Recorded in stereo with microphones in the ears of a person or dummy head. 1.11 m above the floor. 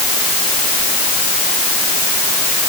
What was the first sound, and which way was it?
Only background noise.